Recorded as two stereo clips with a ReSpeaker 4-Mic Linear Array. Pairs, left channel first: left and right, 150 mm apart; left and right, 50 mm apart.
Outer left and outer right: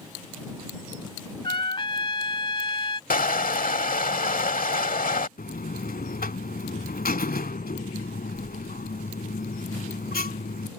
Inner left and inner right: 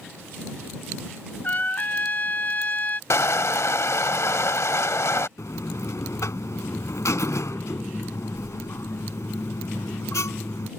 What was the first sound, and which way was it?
A trumpet, 35° left (ahead or behind).